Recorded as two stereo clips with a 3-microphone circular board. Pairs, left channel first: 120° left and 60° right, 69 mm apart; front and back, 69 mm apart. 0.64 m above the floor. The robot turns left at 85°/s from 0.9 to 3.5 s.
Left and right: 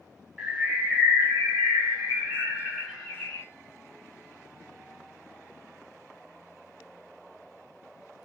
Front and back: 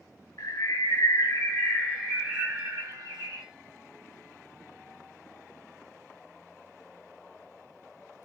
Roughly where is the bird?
Ahead.